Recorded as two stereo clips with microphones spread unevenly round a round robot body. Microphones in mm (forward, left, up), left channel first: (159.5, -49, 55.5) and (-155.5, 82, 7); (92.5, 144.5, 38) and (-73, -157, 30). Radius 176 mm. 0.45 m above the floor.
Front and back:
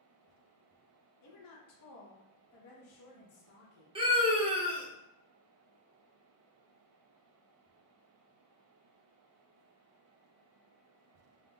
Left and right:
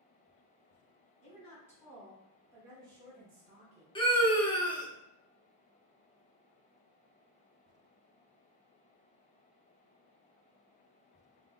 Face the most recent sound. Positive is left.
turn(degrees=125)